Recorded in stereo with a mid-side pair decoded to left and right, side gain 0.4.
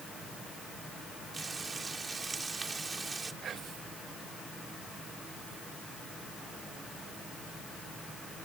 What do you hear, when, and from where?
1.3 s frying: 30° right
3.4 s whispering: 60° right